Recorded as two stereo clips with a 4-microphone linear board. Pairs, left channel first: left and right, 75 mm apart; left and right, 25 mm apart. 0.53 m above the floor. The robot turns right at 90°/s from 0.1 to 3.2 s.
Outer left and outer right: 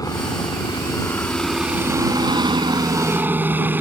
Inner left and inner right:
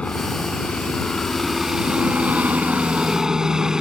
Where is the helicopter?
55° left; by 3.8 s 25° right.